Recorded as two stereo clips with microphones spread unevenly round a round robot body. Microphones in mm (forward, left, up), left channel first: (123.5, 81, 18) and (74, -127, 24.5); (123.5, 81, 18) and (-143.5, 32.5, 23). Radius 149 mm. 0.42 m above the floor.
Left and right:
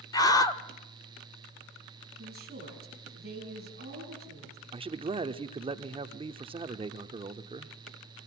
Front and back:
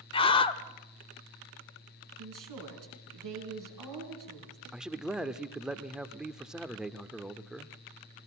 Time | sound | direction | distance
0.1 | a scream | 40° left | 0.9 m
2.2 | a woman speaking | 165° right | 6 m
4.7 | a man speaking | 85° right | 0.8 m